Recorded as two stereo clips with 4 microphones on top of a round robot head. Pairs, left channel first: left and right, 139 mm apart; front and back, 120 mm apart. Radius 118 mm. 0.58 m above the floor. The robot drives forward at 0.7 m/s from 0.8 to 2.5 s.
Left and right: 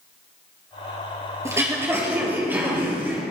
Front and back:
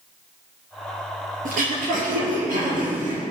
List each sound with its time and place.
1.4 s throat clearing: 160° right, 3 m; by 3.2 s 165° right, 4 m